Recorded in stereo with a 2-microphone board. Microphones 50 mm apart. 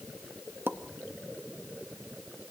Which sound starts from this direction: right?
A pop, at 0.7 s.